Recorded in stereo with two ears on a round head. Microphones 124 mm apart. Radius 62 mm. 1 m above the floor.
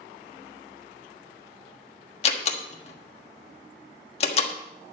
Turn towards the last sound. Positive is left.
turn(degrees=45)  # may be behind; listen again after turning